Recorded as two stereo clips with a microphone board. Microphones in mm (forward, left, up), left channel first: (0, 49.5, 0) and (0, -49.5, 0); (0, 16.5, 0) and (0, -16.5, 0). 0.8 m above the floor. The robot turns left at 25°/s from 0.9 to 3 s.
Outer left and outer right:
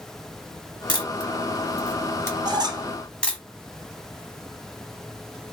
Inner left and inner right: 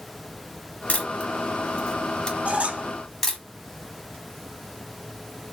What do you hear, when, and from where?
0.9 s a camera shutter: 50° left (ahead or behind), 1.1 m; by 3.4 s 10° left (ahead or behind), 1.1 m
2.5 s a squeak: 45° right (ahead or behind), 0.5 m; by 2.9 s 40° right (ahead or behind), 0.5 m